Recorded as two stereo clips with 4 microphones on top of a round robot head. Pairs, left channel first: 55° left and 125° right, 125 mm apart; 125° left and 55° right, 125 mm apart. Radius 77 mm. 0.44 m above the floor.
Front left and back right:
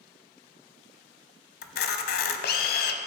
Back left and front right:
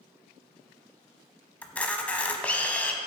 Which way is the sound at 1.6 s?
45° left.